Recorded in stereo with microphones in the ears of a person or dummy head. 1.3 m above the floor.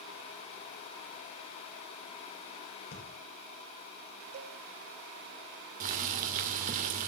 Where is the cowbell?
40° right (ahead or behind), 1.5 m.